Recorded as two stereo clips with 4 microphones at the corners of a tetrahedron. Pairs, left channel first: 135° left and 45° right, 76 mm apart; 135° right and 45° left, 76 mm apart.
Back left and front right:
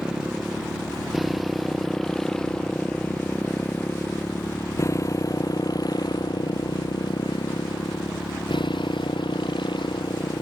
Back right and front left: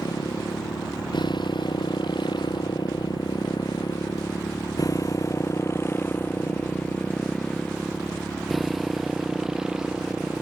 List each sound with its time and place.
0.0 s a motorcycle: 125° right; by 10.4 s 120° left